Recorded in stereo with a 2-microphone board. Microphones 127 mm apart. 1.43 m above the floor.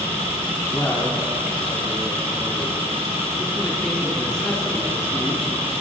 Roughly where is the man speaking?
Left.